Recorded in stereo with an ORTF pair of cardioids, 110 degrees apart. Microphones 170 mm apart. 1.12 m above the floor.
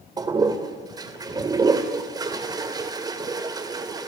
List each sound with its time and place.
0.2 s a toilet flushing: 25° right, 2.5 m